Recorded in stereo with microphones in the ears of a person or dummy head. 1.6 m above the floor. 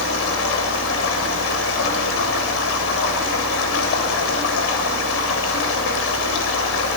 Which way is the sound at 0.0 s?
75° left (ahead or behind).